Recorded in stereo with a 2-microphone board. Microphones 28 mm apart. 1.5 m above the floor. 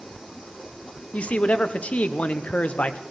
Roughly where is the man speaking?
Left.